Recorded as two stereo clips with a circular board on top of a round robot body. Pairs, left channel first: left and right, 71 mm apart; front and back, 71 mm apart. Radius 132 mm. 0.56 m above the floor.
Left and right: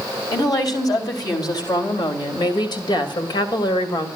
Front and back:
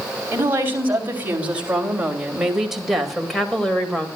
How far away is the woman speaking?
About 4 m.